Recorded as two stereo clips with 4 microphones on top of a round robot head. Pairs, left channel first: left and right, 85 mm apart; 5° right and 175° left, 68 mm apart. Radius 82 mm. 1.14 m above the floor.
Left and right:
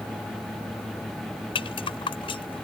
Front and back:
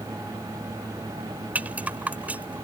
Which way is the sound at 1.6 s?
105° left.